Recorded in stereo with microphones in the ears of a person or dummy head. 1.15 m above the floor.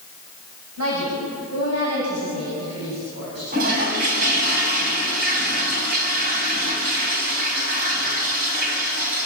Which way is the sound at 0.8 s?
85° right.